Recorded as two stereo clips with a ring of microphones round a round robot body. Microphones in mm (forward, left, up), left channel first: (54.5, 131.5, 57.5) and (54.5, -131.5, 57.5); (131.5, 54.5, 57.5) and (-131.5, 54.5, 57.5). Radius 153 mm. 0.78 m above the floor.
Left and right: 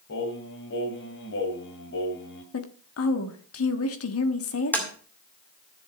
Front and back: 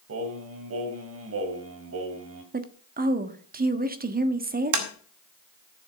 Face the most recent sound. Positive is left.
turn(degrees=175)